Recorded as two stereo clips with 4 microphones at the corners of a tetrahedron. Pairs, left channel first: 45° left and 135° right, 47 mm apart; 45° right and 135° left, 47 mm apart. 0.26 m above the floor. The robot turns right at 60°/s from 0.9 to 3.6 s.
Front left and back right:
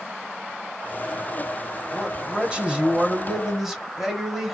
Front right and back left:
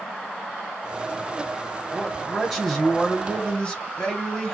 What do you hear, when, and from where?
1.9 s a man speaking: 160° right, 0.9 m; by 4.5 s 60° right, 0.9 m